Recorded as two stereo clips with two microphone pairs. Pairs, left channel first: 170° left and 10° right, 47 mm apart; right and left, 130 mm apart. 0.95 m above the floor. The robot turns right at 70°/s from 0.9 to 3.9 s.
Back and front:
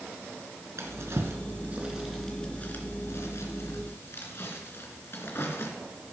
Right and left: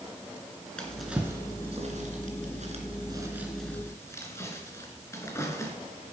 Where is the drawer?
10° right, 3 m; by 5.7 s 160° right, 3 m.